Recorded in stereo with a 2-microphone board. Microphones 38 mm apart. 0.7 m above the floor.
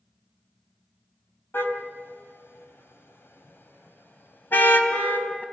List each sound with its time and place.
1.5 s a car horn: 75° left (ahead or behind), 2.5 m; by 5.4 s 50° left (ahead or behind), 2.5 m